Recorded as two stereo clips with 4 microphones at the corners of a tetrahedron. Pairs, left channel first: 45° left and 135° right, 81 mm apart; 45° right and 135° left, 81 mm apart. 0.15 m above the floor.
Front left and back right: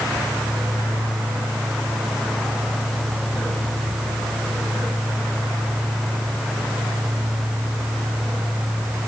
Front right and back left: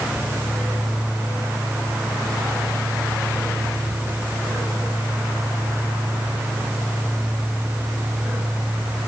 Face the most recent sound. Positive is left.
No sound to turn to.